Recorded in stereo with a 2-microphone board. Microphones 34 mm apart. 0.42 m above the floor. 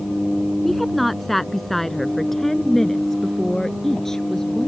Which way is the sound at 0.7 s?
5° left (ahead or behind).